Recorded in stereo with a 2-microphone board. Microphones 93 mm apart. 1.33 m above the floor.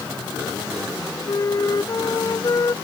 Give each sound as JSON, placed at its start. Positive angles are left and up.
{"t": 1.3, "sound": "a flute", "side_deg": 45}